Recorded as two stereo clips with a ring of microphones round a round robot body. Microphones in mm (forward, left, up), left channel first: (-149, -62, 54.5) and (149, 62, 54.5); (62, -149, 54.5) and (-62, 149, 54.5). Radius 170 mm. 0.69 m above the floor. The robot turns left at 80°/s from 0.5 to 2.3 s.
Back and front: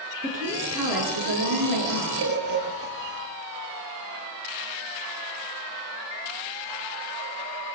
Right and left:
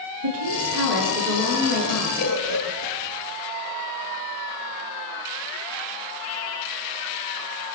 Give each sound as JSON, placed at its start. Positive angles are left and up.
{"t": 0.2, "sound": "a woman speaking", "azimuth_deg": 90, "distance_m": 9.5}
{"t": 2.2, "sound": "a bird", "azimuth_deg": -25, "distance_m": 9.0}